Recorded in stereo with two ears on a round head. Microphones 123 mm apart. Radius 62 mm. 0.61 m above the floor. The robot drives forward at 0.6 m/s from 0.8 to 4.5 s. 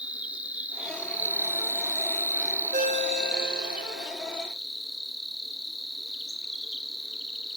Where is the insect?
10° right (ahead or behind), 0.8 m; by 7.6 s 5° right (ahead or behind), 1.6 m.